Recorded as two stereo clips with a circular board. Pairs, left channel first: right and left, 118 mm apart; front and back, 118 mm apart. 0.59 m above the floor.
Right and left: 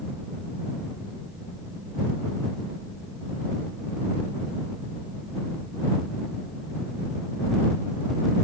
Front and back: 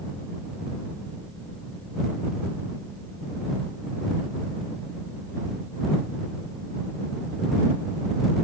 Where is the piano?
No piano in this recording.